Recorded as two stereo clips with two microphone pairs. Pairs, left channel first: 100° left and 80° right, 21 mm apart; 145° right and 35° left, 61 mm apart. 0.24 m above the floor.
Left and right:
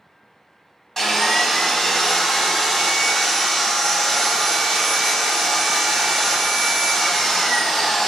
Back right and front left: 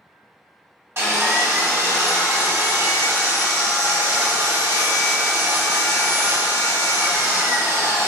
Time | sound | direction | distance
1.0 | sawing | 35° left | 1.1 m